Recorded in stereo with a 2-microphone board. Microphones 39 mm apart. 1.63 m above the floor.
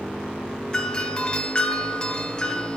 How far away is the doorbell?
About 0.6 m.